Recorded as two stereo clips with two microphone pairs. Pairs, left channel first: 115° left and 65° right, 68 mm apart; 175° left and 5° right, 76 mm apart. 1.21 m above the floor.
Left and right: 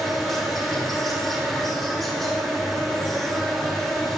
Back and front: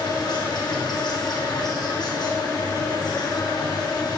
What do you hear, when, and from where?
0.0 s an insect: 160° right, 7 m